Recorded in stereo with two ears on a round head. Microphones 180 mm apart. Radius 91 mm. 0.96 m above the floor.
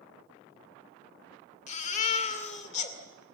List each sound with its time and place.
1.7 s a baby crying: 35° left (ahead or behind), 2 m